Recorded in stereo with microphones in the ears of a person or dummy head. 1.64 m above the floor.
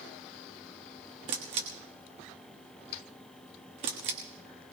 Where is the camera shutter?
35° right (ahead or behind), 1.3 m.